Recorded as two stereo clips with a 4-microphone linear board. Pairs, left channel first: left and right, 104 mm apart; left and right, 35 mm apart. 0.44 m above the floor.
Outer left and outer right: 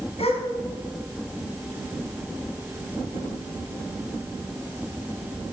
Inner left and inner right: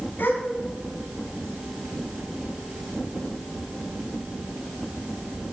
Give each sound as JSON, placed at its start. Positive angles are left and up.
{"t": 0.2, "sound": "a gasp", "side_deg": 75, "distance_m": 3.0}